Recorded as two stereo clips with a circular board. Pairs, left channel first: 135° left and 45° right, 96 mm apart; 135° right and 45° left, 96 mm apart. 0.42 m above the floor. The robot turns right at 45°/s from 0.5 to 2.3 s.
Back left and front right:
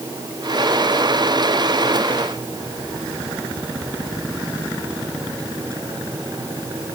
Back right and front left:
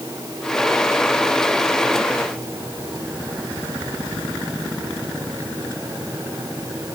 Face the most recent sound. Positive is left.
No sound to turn to.